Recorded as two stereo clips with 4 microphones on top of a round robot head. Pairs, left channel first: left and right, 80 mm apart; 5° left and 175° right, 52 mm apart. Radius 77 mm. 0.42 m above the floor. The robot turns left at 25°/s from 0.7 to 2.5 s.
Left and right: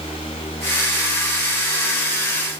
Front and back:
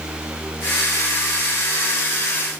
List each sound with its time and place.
Only background noise.